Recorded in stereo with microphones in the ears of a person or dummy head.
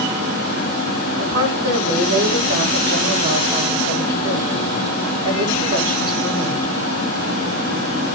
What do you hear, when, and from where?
1.2 s a woman speaking: 30° right (ahead or behind), 8.5 m